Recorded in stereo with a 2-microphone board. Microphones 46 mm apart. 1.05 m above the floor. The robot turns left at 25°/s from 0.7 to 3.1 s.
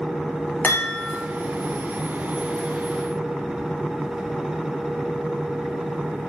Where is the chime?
40° left (ahead or behind), 0.7 m; by 1.2 s 30° left (ahead or behind), 0.7 m.